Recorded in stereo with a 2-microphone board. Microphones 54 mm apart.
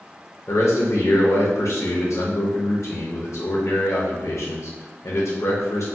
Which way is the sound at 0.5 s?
70° left (ahead or behind).